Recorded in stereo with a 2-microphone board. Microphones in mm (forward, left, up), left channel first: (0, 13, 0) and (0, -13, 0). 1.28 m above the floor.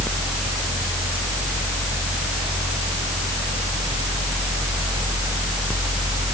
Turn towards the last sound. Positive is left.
No sound to turn to.